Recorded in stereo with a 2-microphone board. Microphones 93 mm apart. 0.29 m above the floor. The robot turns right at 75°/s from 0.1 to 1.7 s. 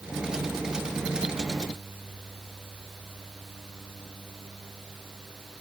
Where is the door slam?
I don't hear a door slam.